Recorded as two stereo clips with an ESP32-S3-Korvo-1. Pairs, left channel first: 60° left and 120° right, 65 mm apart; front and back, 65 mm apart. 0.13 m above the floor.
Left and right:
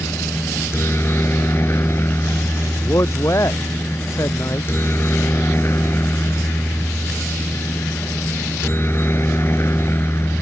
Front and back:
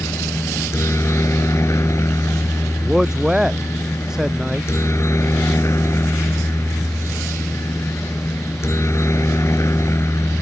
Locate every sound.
0.0 s a helicopter: 25° left
2.8 s a man speaking: 100° left